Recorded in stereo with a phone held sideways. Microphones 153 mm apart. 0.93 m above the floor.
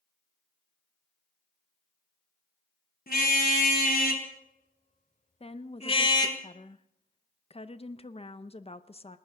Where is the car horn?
85° left, 3 m; by 6.4 s 25° left (ahead or behind), 1.7 m.